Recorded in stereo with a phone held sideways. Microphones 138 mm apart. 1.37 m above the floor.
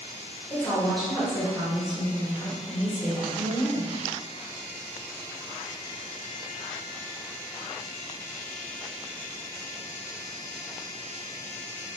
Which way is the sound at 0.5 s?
10° left (ahead or behind).